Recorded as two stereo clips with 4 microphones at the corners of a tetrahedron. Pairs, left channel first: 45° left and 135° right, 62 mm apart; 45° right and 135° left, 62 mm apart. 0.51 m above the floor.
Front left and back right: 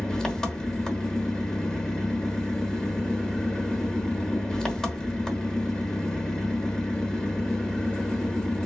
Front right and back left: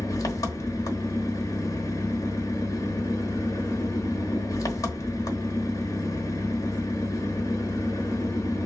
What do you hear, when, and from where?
0.0 s an engine running: 35° right, 1.0 m